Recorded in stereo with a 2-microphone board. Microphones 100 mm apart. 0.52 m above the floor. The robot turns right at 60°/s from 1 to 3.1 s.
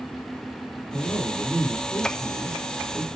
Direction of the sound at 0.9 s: 115° left.